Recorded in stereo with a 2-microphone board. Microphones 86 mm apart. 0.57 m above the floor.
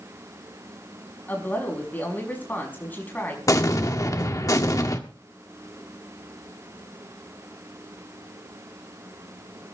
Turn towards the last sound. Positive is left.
turn(degrees=40)  # may be behind; listen again after turning